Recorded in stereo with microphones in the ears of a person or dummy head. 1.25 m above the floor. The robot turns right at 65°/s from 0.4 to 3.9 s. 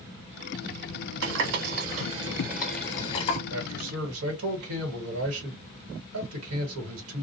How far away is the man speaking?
About 1.5 m.